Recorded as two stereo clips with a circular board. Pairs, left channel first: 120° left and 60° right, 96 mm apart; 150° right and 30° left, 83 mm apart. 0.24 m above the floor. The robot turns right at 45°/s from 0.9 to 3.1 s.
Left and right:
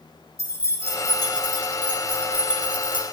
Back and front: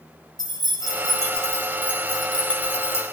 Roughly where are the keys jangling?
Ahead left.